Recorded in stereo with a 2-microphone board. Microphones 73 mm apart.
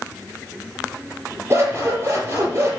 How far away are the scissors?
About 5 m.